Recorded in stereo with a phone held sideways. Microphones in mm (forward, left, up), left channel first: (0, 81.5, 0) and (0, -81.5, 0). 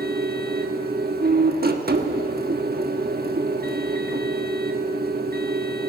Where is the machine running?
70° right (ahead or behind), 1.2 m.